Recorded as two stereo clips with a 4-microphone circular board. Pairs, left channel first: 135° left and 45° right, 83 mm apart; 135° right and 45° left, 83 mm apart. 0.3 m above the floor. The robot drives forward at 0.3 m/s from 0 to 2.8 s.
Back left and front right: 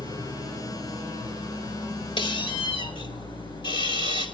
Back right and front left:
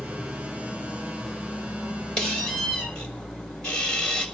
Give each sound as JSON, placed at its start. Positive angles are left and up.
{"t": 0.0, "sound": "an engine running", "azimuth_deg": 145, "distance_m": 6.0}
{"t": 2.2, "sound": "a squeak", "azimuth_deg": 145, "distance_m": 4.5}